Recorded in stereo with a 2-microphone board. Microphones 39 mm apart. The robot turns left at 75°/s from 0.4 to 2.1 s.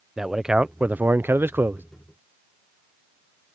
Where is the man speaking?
10° right; by 1.8 s 120° right.